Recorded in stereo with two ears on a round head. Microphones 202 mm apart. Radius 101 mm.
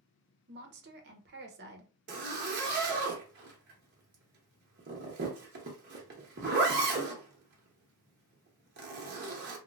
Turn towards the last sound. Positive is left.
turn(degrees=-50)  # may be behind; listen again after turning